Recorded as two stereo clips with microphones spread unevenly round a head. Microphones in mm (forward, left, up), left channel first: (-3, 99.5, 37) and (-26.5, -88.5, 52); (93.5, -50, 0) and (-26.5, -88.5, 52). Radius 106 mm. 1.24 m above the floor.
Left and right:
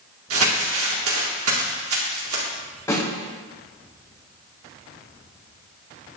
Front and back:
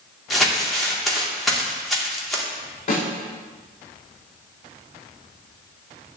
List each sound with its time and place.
0.3 s crumpling: 75° right, 2 m
2.9 s a snare drum: 5° left, 4 m